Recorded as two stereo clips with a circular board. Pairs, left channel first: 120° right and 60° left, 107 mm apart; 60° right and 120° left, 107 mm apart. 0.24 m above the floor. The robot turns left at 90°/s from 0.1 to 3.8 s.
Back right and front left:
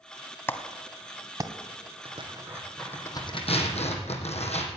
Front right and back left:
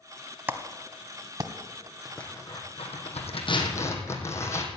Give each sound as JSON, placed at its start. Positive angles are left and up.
{"t": 0.5, "sound": "a clap", "azimuth_deg": 180, "distance_m": 1.2}
{"t": 2.0, "sound": "tearing paper", "azimuth_deg": 35, "distance_m": 2.5}